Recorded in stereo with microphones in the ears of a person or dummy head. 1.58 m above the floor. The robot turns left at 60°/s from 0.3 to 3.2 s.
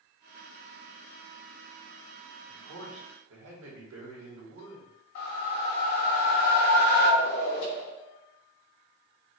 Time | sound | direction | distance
2.5 | a man speaking | 55° right | 1.5 m
5.2 | a whoosh | 60° left (ahead or behind) | 1.2 m